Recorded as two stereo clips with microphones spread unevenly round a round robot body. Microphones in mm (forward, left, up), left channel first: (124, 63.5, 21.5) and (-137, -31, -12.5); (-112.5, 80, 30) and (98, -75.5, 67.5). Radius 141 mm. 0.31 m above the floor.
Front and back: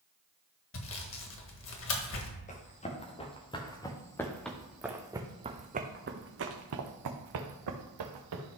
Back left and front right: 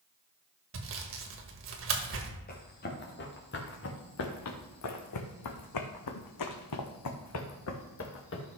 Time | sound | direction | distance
0.7 | sawing | 15° right | 1.5 m
2.5 | running footsteps | 85° left | 2.5 m